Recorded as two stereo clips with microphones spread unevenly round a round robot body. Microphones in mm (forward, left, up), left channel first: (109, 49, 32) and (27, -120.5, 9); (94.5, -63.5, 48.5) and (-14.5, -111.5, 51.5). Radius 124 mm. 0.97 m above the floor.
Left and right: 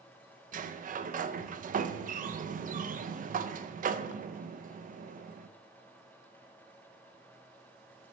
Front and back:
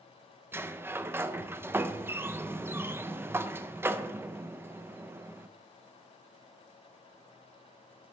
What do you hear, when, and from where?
0.5 s a sliding door: 85° right, 0.6 m